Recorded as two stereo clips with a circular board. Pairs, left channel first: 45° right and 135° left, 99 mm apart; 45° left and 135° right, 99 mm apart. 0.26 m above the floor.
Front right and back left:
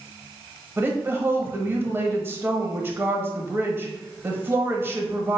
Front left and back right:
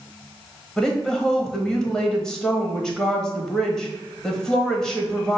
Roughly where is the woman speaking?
Behind left.